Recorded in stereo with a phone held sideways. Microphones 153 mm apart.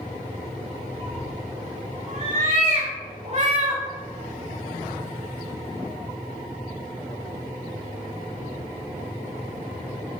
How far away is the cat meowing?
About 3.5 m.